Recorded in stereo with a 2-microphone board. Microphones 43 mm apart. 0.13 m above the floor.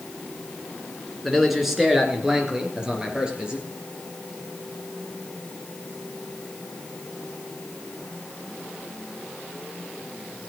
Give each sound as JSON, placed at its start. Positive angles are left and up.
{"t": 1.2, "sound": "a man speaking", "side_deg": 0, "distance_m": 1.8}